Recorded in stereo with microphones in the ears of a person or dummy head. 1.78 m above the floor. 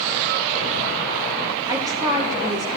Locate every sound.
1.7 s a woman speaking: 20° right (ahead or behind), 2 m; by 2.8 s 25° right (ahead or behind), 2.5 m